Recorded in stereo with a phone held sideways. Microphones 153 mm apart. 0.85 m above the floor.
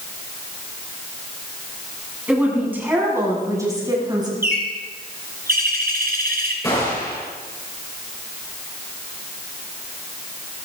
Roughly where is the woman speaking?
Centre.